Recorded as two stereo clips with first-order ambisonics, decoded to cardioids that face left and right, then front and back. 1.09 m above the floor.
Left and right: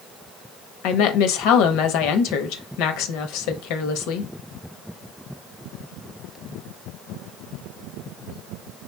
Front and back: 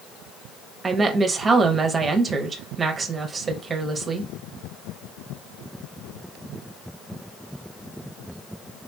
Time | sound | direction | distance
0.8 | a woman speaking | 105° left | 0.8 m